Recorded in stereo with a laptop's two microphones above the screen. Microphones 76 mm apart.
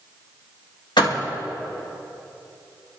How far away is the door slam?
About 1.6 m.